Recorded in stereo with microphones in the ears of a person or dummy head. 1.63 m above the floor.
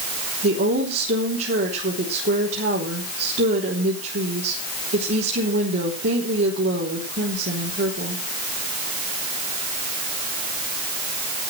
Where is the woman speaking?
65° right (ahead or behind), 3.5 m.